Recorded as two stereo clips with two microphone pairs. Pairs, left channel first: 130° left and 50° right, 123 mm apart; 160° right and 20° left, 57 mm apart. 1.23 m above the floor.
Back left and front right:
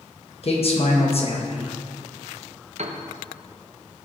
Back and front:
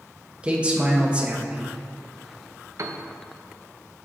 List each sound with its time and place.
0.4 s a man speaking: 90° left, 1.2 m
2.8 s a piano: 20° right, 0.6 m